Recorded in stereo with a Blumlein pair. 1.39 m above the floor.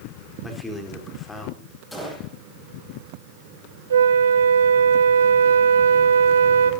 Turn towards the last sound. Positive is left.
turn(degrees=-65)